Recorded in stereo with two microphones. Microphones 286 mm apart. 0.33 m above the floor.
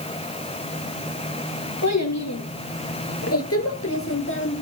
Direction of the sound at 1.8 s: 65° left (ahead or behind).